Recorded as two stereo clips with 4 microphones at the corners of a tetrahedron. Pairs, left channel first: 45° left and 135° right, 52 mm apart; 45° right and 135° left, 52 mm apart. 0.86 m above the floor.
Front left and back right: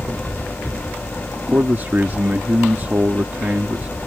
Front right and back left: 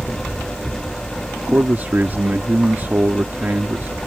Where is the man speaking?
Straight behind.